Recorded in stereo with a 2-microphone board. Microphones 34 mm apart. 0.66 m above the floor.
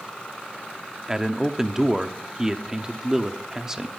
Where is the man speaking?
15° right (ahead or behind), 0.9 m.